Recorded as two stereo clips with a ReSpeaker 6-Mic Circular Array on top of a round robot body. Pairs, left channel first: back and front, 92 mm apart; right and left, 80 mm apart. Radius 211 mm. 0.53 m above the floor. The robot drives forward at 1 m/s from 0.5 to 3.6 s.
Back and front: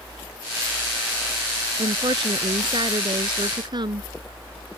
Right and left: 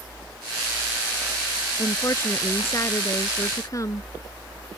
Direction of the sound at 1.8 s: 35° right.